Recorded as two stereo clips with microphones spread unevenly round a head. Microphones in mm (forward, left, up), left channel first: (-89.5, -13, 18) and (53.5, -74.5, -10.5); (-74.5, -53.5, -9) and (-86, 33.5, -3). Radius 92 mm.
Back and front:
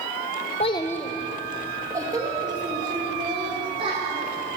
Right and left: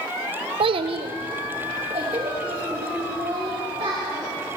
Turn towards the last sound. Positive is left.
turn(degrees=40)